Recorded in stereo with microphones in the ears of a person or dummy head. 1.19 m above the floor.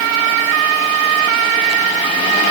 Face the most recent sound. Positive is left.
No sound to turn to.